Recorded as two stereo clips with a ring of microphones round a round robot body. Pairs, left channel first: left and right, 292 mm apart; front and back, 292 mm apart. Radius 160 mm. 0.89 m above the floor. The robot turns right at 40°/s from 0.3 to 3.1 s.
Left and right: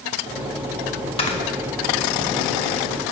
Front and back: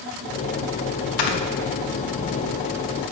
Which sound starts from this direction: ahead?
Snoring, at 1.2 s.